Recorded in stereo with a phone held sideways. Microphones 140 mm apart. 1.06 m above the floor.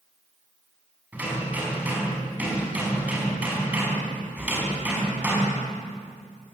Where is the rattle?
No rattle in this recording.